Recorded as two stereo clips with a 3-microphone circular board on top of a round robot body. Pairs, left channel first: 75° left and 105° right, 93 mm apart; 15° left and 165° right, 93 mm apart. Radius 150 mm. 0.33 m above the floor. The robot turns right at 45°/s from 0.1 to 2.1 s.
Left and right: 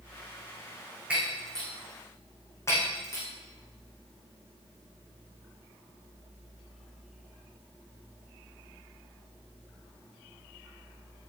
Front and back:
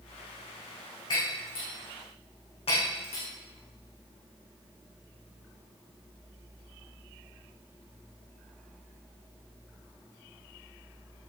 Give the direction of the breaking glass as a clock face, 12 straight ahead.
1 o'clock.